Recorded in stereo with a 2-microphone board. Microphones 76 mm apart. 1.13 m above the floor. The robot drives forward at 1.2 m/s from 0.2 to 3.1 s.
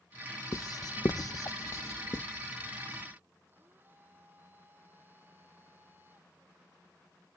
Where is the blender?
30° right (ahead or behind).